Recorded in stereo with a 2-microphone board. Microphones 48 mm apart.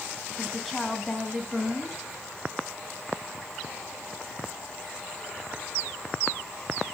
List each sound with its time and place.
0.4 s a woman speaking: 5° left (ahead or behind), 2 m